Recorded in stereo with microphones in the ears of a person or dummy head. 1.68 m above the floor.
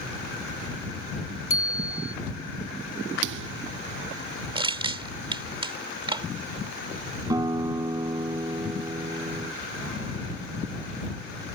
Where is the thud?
60° right (ahead or behind).